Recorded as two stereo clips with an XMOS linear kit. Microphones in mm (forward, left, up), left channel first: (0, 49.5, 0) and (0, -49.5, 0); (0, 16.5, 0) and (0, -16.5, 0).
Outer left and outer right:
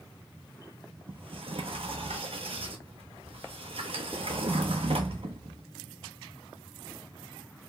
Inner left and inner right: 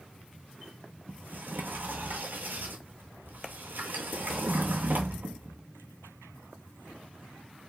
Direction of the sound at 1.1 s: 75° right (ahead or behind).